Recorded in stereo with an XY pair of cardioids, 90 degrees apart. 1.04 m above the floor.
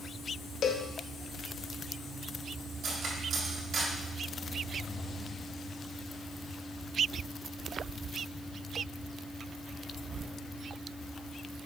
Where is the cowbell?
70° left, 0.8 m.